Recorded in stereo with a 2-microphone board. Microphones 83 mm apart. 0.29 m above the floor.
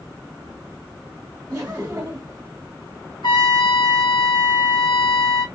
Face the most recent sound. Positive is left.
turn(degrees=70)  # may be behind; listen again after turning